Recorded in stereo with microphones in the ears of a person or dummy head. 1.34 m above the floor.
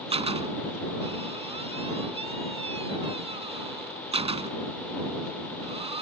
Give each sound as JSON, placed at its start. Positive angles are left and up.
{"t": 0.1, "sound": "a door slam", "side_deg": -35}